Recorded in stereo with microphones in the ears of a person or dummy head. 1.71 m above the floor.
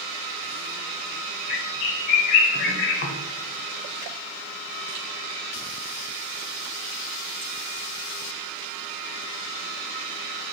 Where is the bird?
50° left (ahead or behind), 0.6 m.